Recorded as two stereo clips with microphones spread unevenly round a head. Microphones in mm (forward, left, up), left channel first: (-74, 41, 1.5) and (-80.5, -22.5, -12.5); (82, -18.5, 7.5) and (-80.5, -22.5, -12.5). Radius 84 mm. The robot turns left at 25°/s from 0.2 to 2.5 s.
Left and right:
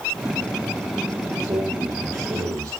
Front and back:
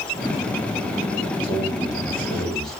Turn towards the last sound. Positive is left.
turn(degrees=-85)